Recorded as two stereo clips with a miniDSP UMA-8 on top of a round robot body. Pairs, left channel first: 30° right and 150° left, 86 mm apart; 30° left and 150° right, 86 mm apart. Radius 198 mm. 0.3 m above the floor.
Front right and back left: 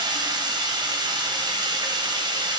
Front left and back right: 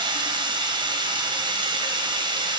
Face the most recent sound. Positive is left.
turn(degrees=-175)